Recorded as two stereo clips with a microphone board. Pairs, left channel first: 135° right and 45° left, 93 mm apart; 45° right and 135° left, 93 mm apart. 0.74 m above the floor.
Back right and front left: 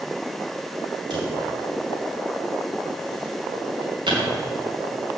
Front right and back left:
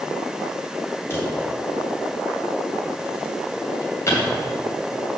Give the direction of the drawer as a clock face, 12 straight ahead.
11 o'clock.